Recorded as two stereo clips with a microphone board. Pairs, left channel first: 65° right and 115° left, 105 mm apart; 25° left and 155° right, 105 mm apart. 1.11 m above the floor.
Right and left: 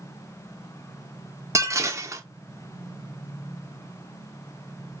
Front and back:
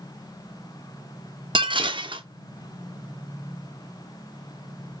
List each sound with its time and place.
1.6 s dishes clattering: 170° left, 0.6 m